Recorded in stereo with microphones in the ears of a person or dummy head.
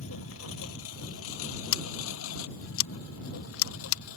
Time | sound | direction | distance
0.0 | a lawn mower | 85° left | ?
1.7 | scissors | 80° left | ?